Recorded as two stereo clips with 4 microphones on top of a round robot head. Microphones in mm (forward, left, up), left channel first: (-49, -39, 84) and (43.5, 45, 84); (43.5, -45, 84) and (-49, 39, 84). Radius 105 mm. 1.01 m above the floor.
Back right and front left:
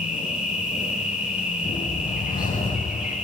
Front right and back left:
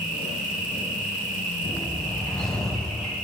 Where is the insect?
125° left, 8.5 m.